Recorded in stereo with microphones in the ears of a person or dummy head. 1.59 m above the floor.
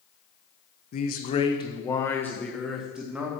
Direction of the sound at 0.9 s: 45° left (ahead or behind).